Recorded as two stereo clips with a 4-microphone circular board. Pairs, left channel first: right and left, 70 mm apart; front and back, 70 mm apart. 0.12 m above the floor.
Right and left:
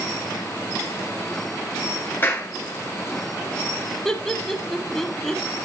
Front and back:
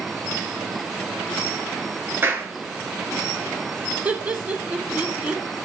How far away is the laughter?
About 1.1 m.